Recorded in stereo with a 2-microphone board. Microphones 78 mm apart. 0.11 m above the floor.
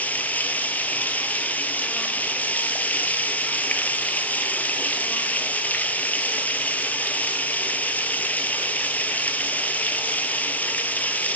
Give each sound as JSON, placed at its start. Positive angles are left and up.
{"t": 0.0, "sound": "running water", "side_deg": 20, "distance_m": 1.2}